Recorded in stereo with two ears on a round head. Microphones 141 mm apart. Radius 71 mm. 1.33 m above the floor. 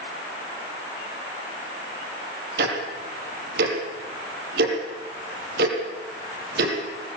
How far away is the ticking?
About 6 m.